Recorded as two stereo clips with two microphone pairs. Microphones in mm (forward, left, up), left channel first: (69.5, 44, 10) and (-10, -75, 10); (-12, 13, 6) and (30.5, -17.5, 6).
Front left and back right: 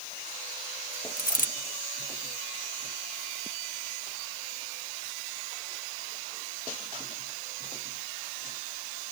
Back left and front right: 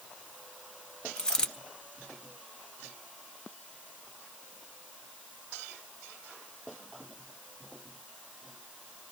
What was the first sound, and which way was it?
A dropped coin, 70° left.